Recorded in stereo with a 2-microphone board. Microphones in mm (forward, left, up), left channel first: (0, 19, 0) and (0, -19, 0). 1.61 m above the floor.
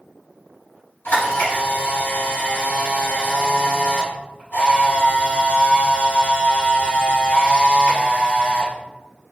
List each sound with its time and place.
1.1 s a camera shutter: 70° left (ahead or behind), 2.0 m